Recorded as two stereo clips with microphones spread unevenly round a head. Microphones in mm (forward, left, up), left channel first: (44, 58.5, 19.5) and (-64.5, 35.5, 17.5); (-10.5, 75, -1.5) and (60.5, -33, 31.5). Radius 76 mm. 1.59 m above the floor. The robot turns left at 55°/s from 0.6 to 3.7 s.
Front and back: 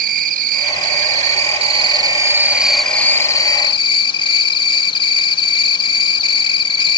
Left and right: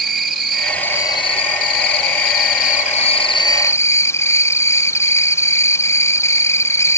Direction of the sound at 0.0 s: 140° right.